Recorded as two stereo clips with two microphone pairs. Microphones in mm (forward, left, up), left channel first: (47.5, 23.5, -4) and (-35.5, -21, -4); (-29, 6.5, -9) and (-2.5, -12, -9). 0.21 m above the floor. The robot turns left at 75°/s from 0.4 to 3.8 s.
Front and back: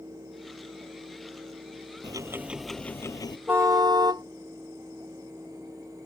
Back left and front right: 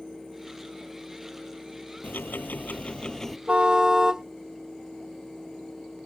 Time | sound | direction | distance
2.0 | ticking | 165° left | ?
3.5 | a car horn | 80° right | ?